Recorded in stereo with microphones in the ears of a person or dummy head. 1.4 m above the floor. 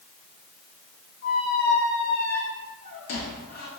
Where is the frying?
No frying in this recording.